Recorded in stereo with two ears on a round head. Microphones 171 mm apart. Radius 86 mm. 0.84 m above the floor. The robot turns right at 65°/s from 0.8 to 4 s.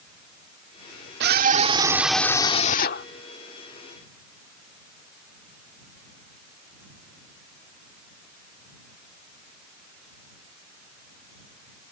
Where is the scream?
60° right; by 3.1 s 60° left.